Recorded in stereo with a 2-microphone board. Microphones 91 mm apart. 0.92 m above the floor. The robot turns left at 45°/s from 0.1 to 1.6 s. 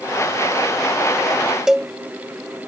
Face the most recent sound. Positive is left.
turn(degrees=-5)  # may be behind; listen again after turning